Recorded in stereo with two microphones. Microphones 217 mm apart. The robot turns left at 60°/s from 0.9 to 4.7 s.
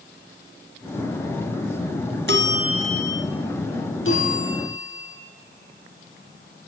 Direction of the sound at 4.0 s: 110° left.